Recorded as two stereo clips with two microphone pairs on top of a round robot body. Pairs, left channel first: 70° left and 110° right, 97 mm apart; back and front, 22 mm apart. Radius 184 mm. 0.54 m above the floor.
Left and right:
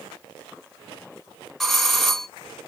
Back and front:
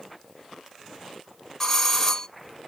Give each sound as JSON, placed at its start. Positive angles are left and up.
{"t": 1.6, "sound": "a doorbell", "azimuth_deg": 180, "distance_m": 1.0}